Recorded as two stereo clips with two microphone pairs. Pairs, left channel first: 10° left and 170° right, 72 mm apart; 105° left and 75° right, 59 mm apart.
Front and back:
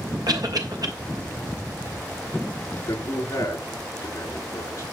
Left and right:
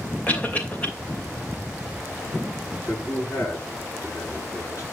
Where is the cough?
170° left, 3 m.